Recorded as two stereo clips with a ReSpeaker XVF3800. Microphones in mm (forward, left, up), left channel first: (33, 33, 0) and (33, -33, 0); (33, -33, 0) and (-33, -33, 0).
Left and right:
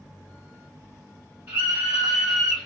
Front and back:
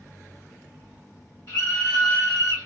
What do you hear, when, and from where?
1.5 s a scream: 25° right, 0.9 m; by 2.7 s 10° left, 1.1 m